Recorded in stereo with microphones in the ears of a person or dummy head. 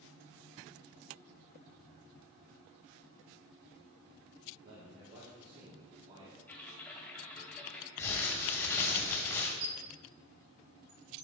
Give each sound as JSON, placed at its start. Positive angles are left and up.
{"t": 4.6, "sound": "a man speaking", "side_deg": -80, "distance_m": 2.5}
{"t": 6.5, "sound": "typing on a keyboard", "side_deg": 15, "distance_m": 2.0}
{"t": 8.0, "sound": "crumpling", "side_deg": 20, "distance_m": 2.0}
{"t": 9.6, "sound": "a squeak", "side_deg": -45, "distance_m": 1.2}